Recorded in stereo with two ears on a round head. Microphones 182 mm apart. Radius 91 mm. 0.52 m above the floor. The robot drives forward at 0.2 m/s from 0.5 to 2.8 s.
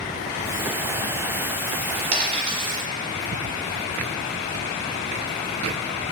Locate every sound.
2.1 s a dropped coin: 30° right (ahead or behind), 0.9 m; by 2.8 s 25° right (ahead or behind), 1.0 m